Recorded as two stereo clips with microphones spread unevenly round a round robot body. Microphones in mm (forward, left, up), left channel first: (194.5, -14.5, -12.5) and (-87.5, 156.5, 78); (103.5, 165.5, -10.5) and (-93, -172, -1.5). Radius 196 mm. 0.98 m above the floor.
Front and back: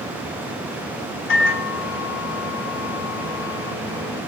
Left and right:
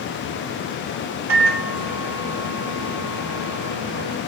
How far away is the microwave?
About 2.5 m.